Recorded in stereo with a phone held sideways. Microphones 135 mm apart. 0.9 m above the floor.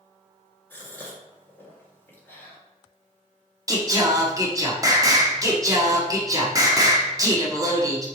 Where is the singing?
25° right (ahead or behind), 1.0 m.